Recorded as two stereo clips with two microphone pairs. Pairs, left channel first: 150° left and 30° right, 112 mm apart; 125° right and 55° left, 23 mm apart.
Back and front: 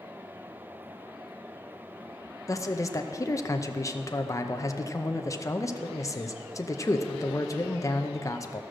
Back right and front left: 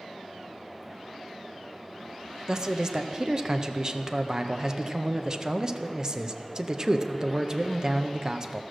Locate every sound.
2.5 s a man speaking: 100° left, 0.6 m